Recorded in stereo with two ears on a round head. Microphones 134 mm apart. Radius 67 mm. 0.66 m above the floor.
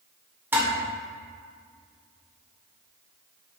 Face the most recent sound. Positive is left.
turn(degrees=-15)  # may be behind; listen again after turning